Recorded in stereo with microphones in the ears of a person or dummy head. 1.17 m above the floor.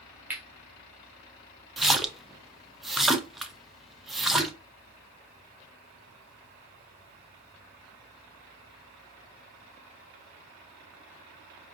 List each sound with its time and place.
0.3 s cutlery clinking: 10° right (ahead or behind), 0.9 m
1.8 s a splash: 5° right (ahead or behind), 0.5 m